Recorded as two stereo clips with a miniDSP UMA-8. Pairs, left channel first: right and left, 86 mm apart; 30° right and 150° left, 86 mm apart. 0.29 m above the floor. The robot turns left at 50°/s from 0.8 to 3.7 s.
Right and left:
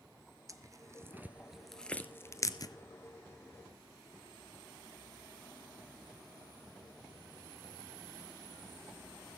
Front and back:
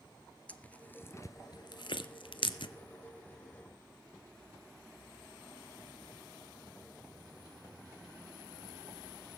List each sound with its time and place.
0.5 s tearing paper: 40° left, 0.9 m; by 2.7 s 55° right, 0.9 m